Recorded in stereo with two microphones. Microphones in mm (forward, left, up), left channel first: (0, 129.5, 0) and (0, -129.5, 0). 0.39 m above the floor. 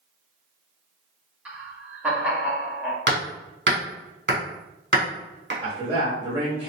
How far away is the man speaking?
About 1.4 m.